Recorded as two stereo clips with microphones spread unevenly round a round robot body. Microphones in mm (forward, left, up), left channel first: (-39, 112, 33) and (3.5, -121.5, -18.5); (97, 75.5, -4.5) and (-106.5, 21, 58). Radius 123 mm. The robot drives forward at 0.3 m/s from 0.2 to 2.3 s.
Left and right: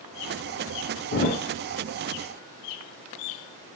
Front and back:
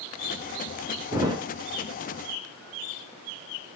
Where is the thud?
130° left, 0.6 m; by 1.4 s 140° left, 0.7 m.